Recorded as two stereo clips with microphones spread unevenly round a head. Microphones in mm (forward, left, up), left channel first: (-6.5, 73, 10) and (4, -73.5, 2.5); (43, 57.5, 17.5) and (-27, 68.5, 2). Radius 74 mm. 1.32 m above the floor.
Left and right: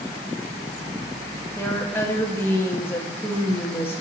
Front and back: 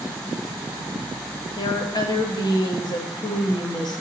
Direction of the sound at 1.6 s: 15° left.